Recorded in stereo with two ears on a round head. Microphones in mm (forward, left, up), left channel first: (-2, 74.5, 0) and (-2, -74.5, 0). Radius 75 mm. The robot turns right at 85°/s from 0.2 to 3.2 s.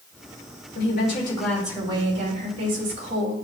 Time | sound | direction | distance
0.8 | a woman speaking | 110° left | 3 m